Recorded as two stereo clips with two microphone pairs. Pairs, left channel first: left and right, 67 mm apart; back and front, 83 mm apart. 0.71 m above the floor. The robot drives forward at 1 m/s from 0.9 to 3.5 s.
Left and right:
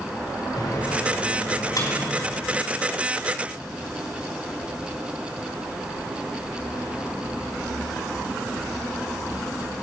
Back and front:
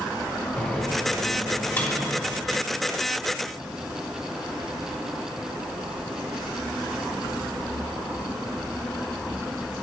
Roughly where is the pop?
No pop in this recording.